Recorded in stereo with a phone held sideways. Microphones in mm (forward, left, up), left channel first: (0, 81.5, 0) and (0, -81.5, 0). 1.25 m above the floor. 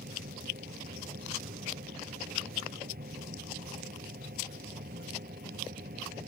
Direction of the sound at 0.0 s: 75° right (ahead or behind).